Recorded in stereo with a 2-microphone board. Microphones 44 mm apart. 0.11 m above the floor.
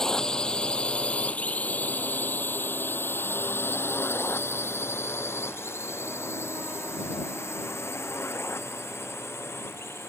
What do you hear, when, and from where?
0.0 s a drone: 15° left (ahead or behind); by 10.1 s 75° left (ahead or behind)